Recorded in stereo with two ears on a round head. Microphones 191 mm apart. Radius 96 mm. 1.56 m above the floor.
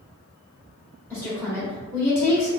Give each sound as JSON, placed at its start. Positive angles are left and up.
{"t": 1.1, "sound": "a woman speaking", "side_deg": 5, "distance_m": 0.9}